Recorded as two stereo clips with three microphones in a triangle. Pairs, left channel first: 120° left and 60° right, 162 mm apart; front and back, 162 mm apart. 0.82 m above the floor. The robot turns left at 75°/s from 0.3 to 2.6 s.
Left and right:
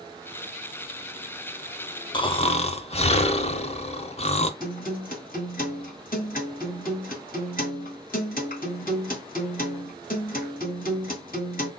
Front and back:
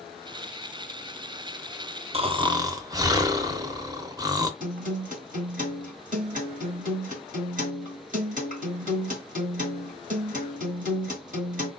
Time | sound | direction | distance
2.1 | snoring | 165° left | 0.6 m
4.6 | a guitar | 145° left | 2 m